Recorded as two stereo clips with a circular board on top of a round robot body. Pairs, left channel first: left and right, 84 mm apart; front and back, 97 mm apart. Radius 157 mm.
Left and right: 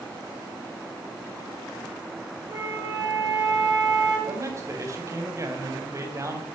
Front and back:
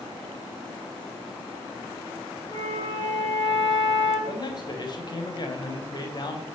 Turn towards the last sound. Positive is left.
turn(degrees=-40)